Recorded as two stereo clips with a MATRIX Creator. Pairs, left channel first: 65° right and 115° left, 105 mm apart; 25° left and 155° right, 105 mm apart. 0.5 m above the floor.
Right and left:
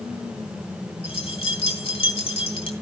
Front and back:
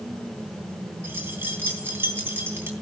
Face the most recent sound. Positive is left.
turn(degrees=-90)